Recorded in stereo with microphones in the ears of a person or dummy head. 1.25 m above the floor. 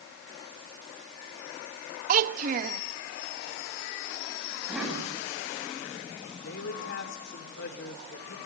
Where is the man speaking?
60° left (ahead or behind), 3 m.